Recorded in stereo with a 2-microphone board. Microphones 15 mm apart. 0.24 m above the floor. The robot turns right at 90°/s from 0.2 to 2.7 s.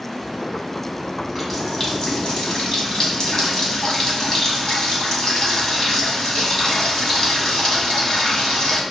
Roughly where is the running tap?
Ahead right.